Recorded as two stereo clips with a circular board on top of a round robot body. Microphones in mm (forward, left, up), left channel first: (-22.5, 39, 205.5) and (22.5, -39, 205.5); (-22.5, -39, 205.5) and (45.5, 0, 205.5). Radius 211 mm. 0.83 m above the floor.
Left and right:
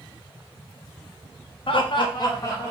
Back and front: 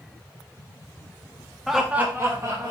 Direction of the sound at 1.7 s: 120° left.